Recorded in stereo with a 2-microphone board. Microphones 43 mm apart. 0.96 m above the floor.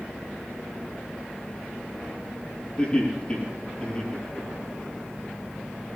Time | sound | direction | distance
2.8 | laughter | 35° left (ahead or behind) | 8 m